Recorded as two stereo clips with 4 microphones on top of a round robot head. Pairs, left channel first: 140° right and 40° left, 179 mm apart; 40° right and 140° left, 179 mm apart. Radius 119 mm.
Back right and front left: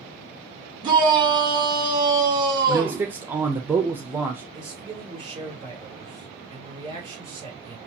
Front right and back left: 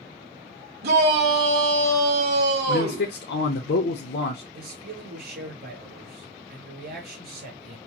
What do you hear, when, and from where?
0.8 s a shout: 110° left, 2 m
2.7 s a man speaking: 35° right, 0.8 m
4.5 s a man speaking: 105° left, 3.5 m